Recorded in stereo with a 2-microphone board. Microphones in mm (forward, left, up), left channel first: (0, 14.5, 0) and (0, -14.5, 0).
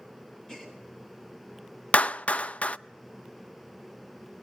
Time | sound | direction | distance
0.5 | a gasp | 20° left (ahead or behind) | 7 m
1.9 | a clap | 50° left (ahead or behind) | 0.5 m